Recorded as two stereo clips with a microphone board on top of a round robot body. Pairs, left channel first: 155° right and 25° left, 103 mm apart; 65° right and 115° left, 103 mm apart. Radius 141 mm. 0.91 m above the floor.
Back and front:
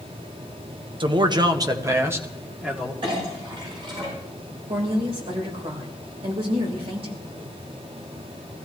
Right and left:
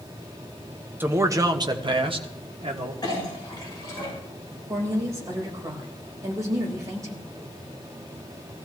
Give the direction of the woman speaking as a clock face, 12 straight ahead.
10 o'clock.